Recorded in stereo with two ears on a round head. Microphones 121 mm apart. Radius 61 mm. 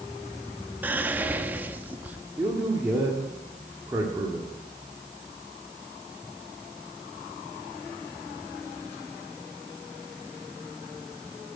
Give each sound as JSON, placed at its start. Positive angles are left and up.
{"t": 0.8, "sound": "whispering", "side_deg": -15, "distance_m": 0.9}
{"t": 2.4, "sound": "a man speaking", "side_deg": -20, "distance_m": 1.8}